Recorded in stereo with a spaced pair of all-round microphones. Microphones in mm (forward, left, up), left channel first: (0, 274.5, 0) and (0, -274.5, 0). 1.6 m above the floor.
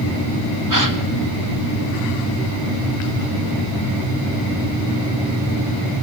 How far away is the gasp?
About 1.9 m.